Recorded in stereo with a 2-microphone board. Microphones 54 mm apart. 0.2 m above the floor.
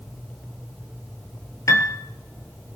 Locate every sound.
1.7 s a piano: 80° left, 1.2 m